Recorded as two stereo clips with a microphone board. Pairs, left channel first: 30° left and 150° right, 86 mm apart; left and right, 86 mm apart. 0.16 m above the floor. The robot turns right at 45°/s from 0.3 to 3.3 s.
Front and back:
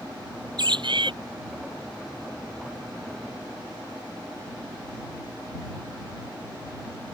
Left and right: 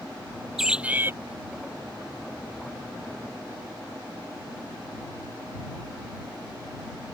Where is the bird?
175° right; by 1.1 s 155° right.